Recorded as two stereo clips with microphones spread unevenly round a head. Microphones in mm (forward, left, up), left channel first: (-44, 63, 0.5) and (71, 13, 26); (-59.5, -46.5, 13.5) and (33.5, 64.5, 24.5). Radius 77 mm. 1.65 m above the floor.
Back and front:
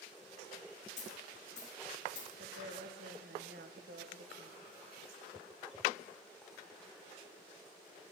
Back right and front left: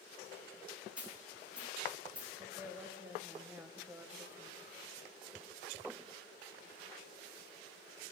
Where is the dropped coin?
130° left, 4.5 m.